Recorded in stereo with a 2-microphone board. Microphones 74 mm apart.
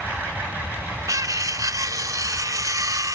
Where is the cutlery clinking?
50° right (ahead or behind), 0.6 m.